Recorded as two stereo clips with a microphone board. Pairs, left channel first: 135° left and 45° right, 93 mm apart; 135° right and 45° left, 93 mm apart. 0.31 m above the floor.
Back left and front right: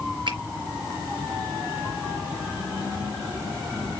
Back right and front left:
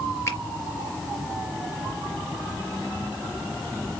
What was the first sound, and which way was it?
A finger snap, 75° right.